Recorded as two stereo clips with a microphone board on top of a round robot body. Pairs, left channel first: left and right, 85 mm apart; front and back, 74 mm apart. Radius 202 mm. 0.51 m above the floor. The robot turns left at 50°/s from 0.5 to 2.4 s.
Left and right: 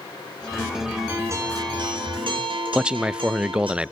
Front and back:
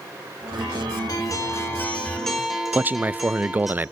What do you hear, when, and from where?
1.1 s a guitar: 25° right, 4.5 m; by 3.7 s 90° right, 4.5 m
2.7 s a man speaking: 155° right, 0.6 m